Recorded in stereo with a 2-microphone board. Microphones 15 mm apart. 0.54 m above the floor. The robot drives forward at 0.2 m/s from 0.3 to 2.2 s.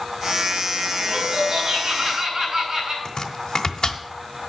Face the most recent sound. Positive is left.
turn(degrees=55)  # may be behind; listen again after turning